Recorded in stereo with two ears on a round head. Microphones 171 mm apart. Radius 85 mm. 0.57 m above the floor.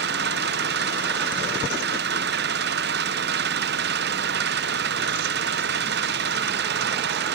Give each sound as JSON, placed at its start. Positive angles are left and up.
{"t": 0.0, "sound": "an engine running", "side_deg": -60}